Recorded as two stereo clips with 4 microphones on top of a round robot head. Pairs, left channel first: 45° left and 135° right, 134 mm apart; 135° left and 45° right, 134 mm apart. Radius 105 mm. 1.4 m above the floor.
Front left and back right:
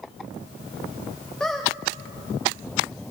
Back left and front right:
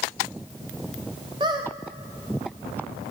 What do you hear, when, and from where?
1.4 s a squeak: 35° right, 0.6 m